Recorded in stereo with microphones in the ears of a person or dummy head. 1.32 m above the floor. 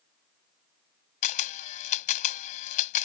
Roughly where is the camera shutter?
Left.